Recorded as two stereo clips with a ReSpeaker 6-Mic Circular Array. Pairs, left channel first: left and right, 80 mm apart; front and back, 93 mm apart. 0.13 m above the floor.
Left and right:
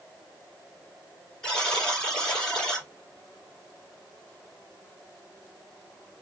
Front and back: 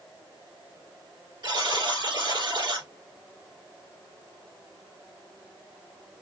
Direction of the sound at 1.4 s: 165° left.